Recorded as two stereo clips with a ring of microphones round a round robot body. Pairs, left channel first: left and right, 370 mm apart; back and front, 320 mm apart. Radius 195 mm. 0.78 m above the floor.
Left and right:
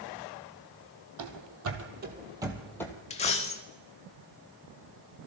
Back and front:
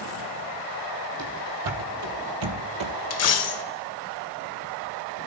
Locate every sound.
1.2 s running footsteps: 50° right, 2 m; by 2.9 s 10° left, 1.7 m
3.1 s a dropped coin: 160° left, 0.7 m